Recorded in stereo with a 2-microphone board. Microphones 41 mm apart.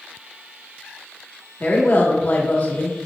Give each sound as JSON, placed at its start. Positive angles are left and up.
{"t": 1.6, "sound": "a woman speaking", "side_deg": 45, "distance_m": 1.6}